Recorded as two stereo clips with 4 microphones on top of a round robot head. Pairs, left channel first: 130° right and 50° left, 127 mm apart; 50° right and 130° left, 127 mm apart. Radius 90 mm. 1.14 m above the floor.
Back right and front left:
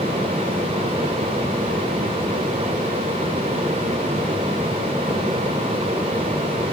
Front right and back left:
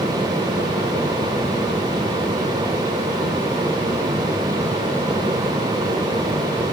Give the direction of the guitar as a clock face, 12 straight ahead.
I don't hear a guitar.